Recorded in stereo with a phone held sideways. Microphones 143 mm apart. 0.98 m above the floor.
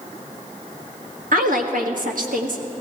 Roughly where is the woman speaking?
Right.